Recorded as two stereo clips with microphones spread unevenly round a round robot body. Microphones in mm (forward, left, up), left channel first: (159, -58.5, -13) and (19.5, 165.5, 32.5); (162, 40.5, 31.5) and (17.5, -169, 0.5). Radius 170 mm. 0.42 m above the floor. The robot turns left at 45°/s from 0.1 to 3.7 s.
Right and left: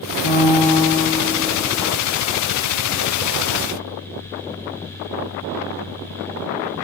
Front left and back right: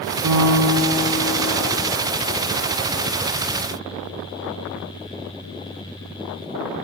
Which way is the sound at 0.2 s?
90° right.